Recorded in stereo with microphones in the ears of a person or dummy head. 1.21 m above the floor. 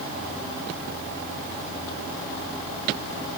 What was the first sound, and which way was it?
Only background noise.